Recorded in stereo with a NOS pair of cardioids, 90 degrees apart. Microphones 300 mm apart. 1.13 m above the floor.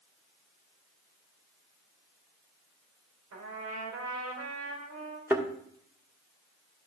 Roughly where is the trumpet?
Ahead right.